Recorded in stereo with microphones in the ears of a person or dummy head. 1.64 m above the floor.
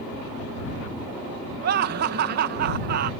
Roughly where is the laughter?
Right.